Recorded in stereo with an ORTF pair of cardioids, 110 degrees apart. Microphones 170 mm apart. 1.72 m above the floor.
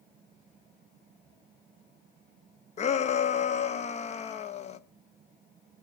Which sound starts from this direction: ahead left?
A shout, at 2.8 s.